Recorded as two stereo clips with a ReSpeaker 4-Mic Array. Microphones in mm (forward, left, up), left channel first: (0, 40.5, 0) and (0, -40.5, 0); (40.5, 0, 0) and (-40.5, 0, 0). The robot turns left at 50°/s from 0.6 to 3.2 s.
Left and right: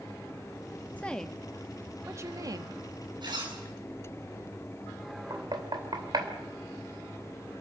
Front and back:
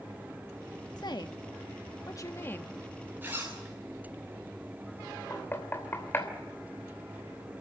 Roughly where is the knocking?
Ahead right.